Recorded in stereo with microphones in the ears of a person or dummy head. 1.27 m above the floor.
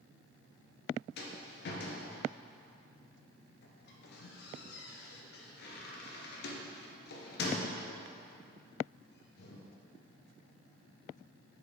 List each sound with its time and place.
1.2 s a rattle: 55° left (ahead or behind), 0.8 m